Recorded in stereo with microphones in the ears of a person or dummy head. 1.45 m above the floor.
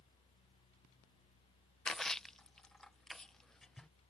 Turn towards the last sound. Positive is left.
turn(degrees=5)  # may be behind; listen again after turning